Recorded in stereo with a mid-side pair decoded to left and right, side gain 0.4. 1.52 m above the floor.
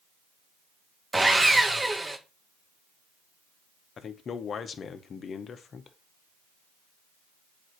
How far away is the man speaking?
About 0.9 m.